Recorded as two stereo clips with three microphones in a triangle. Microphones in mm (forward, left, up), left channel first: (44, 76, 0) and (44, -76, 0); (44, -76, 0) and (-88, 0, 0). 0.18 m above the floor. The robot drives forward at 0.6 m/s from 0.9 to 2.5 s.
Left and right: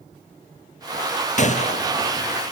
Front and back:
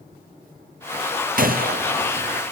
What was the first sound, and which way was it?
A gunshot, 130° left.